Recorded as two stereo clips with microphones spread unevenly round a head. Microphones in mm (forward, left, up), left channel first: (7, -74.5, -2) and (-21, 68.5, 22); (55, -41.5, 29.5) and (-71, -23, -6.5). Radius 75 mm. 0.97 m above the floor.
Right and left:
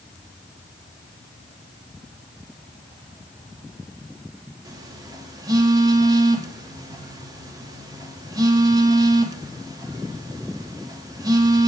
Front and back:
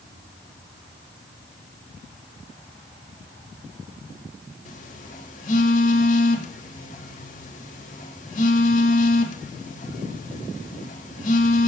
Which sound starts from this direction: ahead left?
A phone buzzing, at 4.7 s.